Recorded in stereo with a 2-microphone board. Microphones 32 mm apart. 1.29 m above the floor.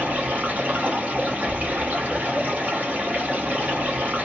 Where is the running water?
60° right (ahead or behind), 1.1 m.